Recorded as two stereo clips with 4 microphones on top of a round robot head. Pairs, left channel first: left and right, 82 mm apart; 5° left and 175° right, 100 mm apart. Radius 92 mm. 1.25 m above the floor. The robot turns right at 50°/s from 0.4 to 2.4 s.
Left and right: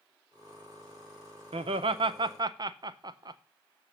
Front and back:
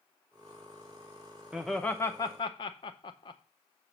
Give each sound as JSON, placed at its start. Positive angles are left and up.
{"t": 1.5, "sound": "laughter", "azimuth_deg": -95, "distance_m": 0.6}